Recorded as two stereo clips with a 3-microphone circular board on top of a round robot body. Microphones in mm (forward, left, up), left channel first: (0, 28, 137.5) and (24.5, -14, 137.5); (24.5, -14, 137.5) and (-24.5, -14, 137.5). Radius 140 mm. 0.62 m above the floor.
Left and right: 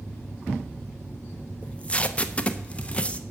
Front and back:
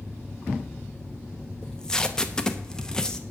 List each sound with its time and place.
1.6 s tape being pulled: 70° left, 1.1 m